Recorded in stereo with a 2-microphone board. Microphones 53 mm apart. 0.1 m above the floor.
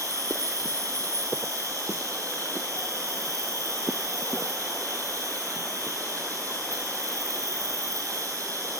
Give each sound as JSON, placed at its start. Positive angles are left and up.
{"t": 0.0, "sound": "an insect", "side_deg": -75, "distance_m": 10.0}